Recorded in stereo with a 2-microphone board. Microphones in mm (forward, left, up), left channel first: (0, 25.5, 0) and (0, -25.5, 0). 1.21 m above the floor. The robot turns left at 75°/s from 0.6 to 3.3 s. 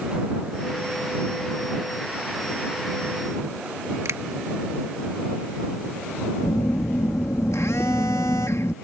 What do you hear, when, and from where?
4.0 s a finger snap: 80° right
6.4 s a phone buzzing: 80° left